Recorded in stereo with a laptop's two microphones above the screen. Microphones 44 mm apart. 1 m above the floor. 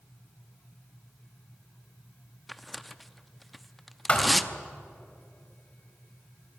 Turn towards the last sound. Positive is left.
turn(degrees=20)  # may be behind; listen again after turning